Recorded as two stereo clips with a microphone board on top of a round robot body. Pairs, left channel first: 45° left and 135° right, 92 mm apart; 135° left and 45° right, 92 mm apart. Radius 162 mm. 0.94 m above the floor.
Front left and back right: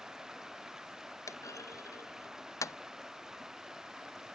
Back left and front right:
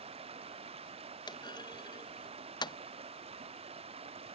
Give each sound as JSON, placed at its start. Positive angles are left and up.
{"t": 0.0, "sound": "running water", "azimuth_deg": -50}
{"t": 1.3, "sound": "a clunk", "azimuth_deg": 100}